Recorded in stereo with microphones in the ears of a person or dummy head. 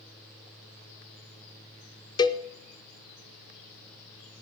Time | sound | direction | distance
2.2 | a cowbell | 20° left (ahead or behind) | 0.6 m